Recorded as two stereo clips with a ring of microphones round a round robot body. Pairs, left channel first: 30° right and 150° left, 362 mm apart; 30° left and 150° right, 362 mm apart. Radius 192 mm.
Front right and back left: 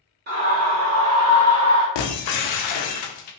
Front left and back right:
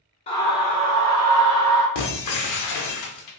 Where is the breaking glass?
15° right, 0.7 m.